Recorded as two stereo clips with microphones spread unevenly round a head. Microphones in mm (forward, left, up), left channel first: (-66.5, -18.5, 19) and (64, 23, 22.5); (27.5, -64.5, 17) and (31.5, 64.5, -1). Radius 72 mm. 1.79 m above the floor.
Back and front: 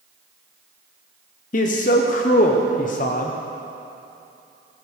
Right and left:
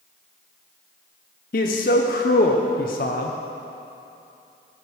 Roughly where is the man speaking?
Behind right.